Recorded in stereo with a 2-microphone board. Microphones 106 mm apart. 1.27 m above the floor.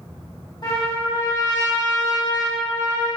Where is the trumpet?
45° left (ahead or behind), 1.6 m.